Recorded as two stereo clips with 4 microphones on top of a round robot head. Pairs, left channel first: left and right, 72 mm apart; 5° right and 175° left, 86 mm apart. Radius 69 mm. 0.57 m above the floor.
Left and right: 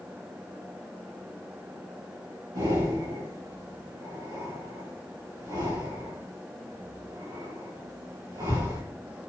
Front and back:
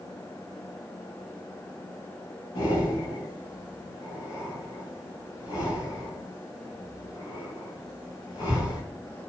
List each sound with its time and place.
2.5 s breathing: 50° right, 6.5 m